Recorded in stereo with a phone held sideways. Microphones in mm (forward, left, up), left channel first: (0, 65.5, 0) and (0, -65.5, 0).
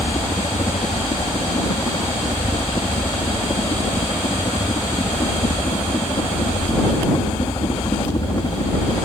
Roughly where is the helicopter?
Left.